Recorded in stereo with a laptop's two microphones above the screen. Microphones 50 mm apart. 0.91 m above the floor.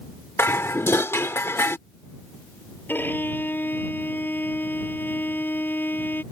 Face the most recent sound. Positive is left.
turn(degrees=45)  # may be behind; listen again after turning